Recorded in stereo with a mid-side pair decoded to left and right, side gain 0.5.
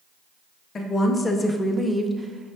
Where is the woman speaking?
40° left, 0.9 m; by 2.6 s 40° right, 0.6 m.